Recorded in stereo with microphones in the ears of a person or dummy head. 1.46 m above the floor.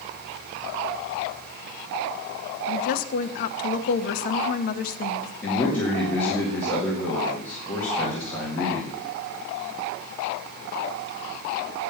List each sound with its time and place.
2.7 s a woman speaking: 50° left (ahead or behind), 0.8 m
5.4 s a man speaking: 15° left (ahead or behind), 2.0 m